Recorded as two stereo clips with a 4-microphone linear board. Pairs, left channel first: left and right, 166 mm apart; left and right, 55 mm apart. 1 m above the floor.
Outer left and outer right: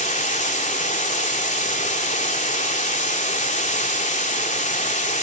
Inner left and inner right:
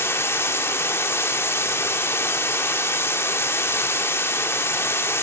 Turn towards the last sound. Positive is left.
turn(degrees=45)  # may be behind; listen again after turning